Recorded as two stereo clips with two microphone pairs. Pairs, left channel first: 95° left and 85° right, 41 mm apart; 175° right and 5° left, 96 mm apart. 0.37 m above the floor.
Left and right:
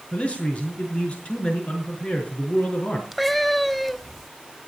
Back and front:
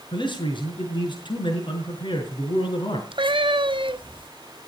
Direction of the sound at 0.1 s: 155° left.